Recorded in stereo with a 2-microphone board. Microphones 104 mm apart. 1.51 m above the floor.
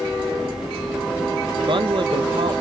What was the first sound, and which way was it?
A man speaking, 55° right (ahead or behind).